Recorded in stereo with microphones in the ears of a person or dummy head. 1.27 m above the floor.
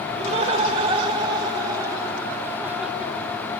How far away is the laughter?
About 4.5 m.